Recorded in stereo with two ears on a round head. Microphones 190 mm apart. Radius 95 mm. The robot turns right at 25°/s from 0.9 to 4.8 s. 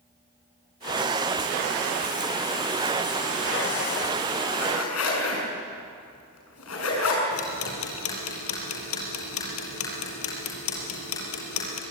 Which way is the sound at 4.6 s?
85° left.